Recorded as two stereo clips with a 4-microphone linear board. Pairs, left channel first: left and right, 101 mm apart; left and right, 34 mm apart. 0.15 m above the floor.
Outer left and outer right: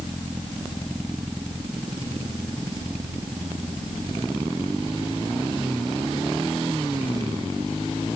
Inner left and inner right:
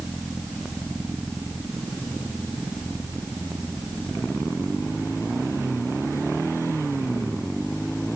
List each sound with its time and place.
Only background noise.